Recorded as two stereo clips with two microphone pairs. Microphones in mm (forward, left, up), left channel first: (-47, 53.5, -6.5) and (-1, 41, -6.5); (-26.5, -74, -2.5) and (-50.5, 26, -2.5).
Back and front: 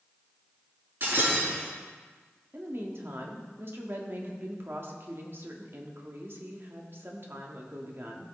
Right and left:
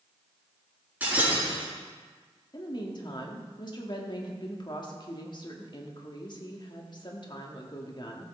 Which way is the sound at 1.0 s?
30° left.